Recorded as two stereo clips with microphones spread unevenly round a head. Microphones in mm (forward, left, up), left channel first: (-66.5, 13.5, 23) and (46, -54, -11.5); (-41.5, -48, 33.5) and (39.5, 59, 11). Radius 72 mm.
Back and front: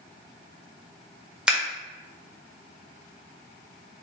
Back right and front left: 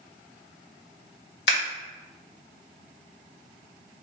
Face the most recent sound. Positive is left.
turn(degrees=-120)